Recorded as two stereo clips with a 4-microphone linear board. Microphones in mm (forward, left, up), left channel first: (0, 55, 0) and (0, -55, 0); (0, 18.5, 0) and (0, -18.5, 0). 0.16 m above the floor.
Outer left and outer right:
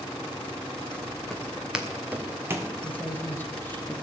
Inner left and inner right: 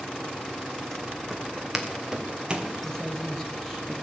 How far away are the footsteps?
About 3 m.